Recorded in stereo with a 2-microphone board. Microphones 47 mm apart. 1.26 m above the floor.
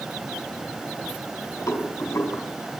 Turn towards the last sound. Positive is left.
turn(degrees=80)